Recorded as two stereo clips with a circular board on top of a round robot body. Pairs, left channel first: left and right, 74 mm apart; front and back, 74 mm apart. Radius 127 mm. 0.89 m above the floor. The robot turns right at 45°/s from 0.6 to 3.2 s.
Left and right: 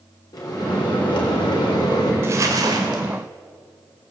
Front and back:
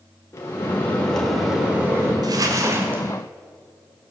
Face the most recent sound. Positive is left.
turn(degrees=-105)